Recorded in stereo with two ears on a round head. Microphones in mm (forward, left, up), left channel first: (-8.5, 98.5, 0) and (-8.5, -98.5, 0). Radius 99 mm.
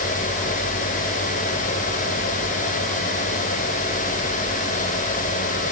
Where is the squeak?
I don't hear a squeak.